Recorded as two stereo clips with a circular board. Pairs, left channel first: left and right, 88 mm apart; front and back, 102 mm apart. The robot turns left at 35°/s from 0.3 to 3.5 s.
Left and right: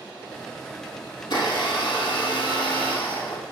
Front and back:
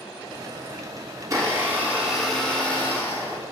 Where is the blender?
130° left, 1.2 m; by 3.4 s 50° left, 1.2 m.